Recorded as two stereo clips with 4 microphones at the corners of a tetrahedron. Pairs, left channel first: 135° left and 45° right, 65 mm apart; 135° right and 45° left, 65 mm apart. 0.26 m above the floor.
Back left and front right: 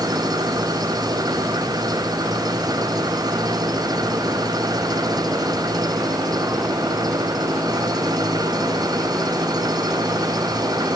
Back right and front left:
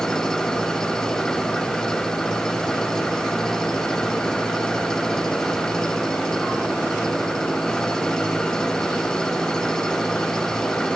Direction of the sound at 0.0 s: 55° right.